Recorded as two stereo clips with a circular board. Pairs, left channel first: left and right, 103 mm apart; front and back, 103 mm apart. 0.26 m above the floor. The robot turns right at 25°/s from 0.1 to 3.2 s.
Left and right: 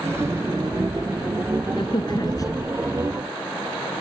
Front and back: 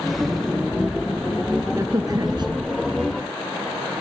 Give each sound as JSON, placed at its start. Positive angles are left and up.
{"t": 1.7, "sound": "a crack", "azimuth_deg": 125}